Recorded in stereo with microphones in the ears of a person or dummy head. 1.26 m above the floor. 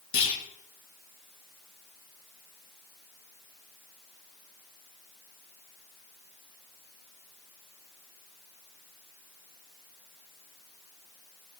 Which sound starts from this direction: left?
A clunk, at 0.1 s.